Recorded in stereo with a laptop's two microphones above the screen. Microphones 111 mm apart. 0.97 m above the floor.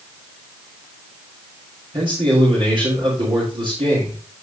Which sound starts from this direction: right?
A man speaking, at 1.9 s.